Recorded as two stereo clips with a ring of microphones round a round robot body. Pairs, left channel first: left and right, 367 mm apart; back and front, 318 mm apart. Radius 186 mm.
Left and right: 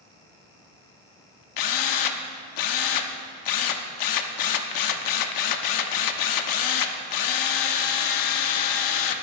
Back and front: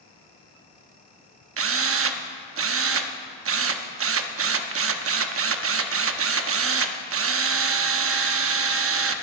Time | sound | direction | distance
1.6 | a drill | 50° left | 0.9 m